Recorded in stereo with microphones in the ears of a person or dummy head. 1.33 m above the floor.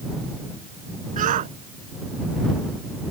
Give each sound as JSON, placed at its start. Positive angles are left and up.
{"t": 1.2, "sound": "a shout", "side_deg": -40}